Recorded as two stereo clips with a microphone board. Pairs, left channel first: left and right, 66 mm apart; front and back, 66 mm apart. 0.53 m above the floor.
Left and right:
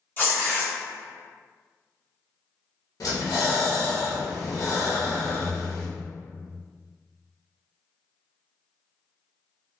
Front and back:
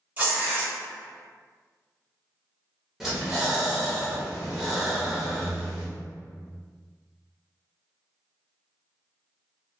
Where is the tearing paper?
135° left, 1.7 m.